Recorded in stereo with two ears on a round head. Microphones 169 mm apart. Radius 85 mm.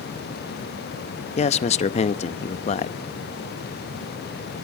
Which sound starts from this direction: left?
A man speaking, at 1.4 s.